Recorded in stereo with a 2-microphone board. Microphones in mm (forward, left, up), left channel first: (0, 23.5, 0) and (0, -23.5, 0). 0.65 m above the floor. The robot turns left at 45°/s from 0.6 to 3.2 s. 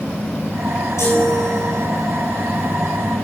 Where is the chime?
95° left, 6.5 m; by 1.8 s 55° left, 6.5 m.